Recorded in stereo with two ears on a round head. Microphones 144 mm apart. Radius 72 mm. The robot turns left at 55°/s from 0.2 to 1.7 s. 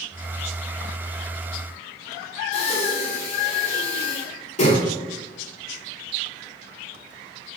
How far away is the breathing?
About 3.5 m.